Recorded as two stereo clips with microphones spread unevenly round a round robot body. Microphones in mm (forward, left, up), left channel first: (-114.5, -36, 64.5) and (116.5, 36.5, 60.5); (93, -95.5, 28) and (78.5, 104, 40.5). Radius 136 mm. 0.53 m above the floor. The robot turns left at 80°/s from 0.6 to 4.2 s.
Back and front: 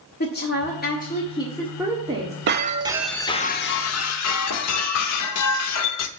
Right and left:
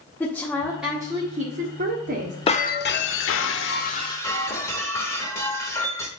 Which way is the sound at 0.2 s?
160° right.